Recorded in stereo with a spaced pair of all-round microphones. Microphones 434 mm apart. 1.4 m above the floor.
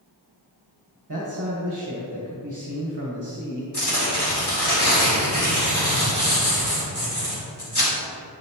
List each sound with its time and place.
1.1 s a man speaking: 45° right (ahead or behind), 1.5 m
3.7 s tearing paper: 65° left (ahead or behind), 2.5 m